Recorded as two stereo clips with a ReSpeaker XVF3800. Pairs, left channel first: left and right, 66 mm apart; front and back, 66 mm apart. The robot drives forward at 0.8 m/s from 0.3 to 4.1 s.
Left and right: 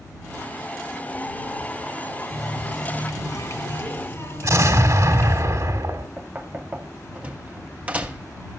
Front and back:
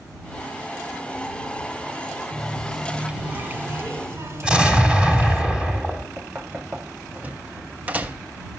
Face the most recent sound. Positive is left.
turn(degrees=-140)